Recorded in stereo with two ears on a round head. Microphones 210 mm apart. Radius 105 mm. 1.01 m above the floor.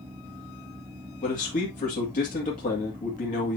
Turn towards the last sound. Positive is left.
turn(degrees=35)  # may be behind; listen again after turning